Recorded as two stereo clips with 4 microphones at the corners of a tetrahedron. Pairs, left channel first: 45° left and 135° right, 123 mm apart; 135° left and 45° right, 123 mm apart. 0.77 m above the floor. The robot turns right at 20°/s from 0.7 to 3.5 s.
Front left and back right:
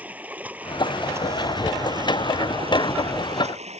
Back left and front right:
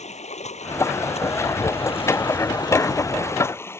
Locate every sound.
0.0 s running water: 150° left; by 3.8 s 155° right